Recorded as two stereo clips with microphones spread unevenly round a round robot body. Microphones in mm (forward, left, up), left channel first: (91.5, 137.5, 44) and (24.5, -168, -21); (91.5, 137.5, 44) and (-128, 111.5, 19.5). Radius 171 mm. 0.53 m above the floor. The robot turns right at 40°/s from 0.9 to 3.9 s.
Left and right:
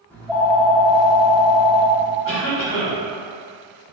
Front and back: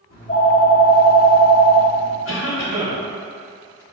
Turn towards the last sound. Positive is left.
turn(degrees=80)